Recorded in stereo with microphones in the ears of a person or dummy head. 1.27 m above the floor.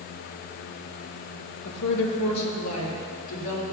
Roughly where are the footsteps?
No footsteps in this recording.